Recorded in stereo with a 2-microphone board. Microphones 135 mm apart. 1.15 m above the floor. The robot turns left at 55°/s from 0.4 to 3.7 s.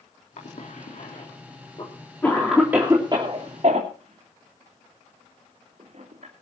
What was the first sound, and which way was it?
A cough, 65° left (ahead or behind).